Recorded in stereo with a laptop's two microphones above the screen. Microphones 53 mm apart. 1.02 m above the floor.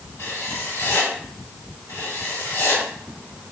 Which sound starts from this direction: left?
Writing, at 0.2 s.